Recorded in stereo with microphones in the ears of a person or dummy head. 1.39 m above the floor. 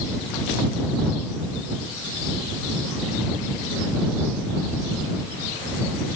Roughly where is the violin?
I don't hear a violin.